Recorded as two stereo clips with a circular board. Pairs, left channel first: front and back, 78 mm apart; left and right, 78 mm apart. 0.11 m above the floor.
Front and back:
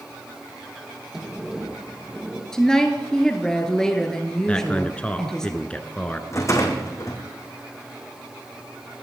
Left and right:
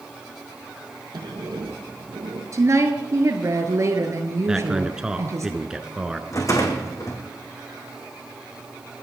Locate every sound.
1.1 s a sliding door: 95° right, 4.5 m
2.5 s a woman speaking: 80° right, 1.9 m
4.5 s a man speaking: 30° right, 1.2 m
6.3 s a rattle: 45° left, 3 m